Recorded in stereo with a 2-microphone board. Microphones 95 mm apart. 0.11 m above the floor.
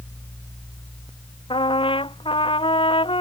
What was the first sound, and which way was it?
A trumpet, 75° left (ahead or behind).